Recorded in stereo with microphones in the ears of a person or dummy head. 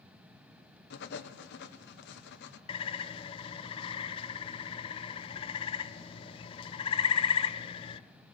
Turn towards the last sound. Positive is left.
turn(degrees=30)  # may be behind; listen again after turning